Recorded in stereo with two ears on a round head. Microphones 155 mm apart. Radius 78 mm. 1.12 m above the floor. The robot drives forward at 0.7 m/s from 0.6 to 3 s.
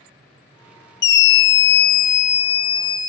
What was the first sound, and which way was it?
A scream, 65° left (ahead or behind).